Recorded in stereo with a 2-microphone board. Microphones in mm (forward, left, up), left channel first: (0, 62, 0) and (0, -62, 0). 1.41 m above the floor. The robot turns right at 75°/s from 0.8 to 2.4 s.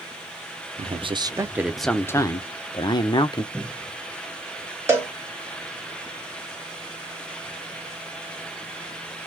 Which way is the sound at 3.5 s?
10° left (ahead or behind).